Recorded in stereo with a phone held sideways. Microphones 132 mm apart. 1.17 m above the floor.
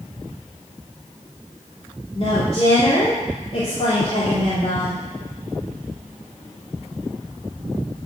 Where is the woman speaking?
50° left (ahead or behind), 2.5 m.